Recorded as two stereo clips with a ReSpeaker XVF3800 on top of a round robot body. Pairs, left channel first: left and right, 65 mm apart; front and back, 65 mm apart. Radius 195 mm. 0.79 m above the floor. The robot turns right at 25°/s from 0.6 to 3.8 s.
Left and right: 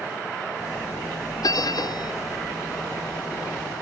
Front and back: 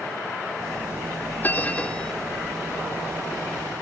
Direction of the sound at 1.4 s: 60° left.